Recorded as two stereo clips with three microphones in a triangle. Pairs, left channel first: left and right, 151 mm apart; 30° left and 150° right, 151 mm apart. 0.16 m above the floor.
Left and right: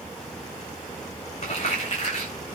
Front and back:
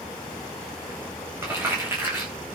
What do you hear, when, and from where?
1.4 s crumpling: 135° left, 9 m